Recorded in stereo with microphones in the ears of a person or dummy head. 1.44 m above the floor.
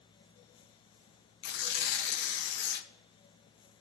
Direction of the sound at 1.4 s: 60° left (ahead or behind).